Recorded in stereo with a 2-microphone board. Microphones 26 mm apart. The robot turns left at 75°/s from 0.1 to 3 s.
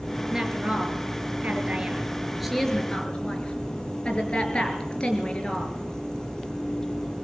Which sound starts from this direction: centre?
A woman speaking, at 0.3 s.